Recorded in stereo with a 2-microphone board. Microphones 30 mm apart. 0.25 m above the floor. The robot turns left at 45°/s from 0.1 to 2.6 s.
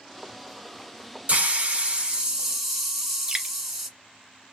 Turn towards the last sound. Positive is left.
turn(degrees=-25)  # may be behind; listen again after turning